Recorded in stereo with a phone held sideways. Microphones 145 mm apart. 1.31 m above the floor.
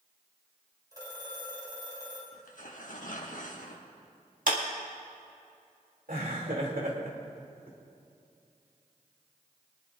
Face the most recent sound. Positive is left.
turn(degrees=-75)  # may be behind; listen again after turning